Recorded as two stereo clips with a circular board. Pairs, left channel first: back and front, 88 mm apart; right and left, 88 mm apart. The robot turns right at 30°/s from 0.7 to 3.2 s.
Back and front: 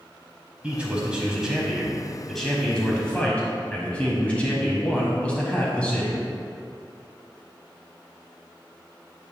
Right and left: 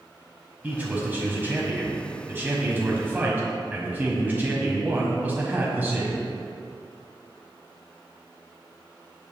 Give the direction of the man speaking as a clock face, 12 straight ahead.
10 o'clock.